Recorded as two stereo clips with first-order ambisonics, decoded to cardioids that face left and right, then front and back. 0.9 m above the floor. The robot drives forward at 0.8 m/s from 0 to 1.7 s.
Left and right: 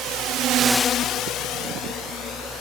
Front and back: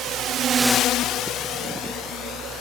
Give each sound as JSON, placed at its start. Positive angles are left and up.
{"t": 0.0, "sound": "a drone", "azimuth_deg": -135}